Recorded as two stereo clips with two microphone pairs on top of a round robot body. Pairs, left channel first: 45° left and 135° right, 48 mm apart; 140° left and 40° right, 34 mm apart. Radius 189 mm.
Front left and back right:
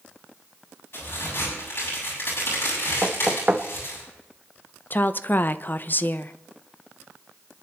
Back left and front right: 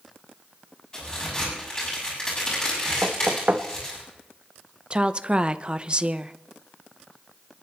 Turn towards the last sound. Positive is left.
turn(degrees=5)